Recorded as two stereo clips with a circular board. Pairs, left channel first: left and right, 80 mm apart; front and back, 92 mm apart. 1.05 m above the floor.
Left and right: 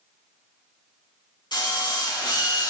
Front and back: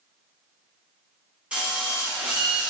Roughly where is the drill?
Left.